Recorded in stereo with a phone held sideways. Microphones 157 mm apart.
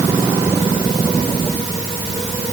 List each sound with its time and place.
Only background noise.